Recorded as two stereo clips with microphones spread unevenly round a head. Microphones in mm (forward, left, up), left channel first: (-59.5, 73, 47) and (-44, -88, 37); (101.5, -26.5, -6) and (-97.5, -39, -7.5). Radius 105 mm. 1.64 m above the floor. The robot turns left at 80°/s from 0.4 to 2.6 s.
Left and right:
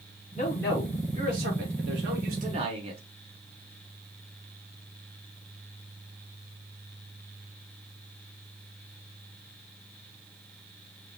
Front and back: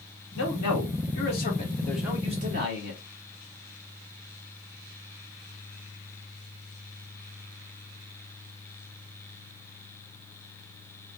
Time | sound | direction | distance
0.3 | a man speaking | 40° left | 2.5 m